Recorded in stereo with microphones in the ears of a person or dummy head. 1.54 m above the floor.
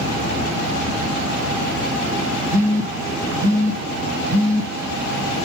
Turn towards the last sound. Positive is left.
turn(degrees=-15)  # may be behind; listen again after turning